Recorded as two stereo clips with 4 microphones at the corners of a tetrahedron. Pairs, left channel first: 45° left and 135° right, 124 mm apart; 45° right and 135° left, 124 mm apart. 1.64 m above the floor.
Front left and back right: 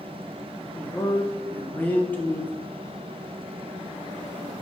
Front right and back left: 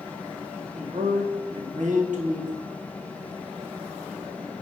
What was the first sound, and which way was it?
A man speaking, 120° left.